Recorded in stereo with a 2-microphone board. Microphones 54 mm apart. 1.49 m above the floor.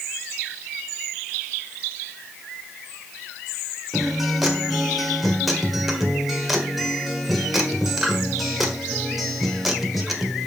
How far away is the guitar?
About 1.6 m.